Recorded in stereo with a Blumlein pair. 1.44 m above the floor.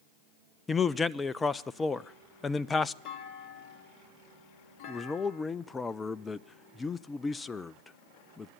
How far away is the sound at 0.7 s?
About 0.6 m.